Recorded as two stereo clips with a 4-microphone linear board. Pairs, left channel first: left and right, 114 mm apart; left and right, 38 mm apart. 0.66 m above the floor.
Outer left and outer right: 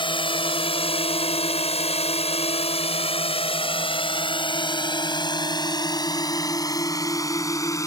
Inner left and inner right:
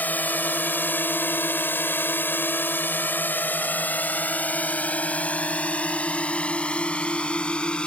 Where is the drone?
50° left (ahead or behind); by 7.9 s 25° left (ahead or behind).